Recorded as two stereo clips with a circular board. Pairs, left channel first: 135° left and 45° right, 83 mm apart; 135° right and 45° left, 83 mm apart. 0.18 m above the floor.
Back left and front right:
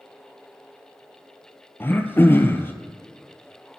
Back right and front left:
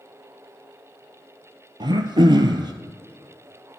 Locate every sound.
1.8 s throat clearing: 70° left, 0.8 m